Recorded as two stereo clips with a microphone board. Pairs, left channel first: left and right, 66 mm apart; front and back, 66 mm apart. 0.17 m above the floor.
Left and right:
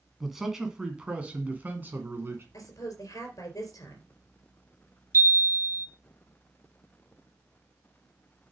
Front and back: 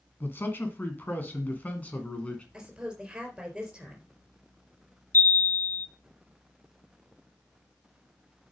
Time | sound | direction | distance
0.2 | a man speaking | 5° right | 1.9 m
2.5 | a woman speaking | 105° left | 4 m
5.1 | a chime | 50° right | 1.2 m